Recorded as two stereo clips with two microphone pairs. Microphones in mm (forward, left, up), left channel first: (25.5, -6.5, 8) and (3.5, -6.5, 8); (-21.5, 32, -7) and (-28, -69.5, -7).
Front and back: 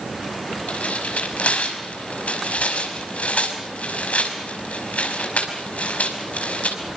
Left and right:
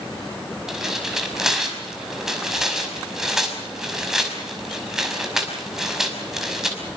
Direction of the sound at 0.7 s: 10° right.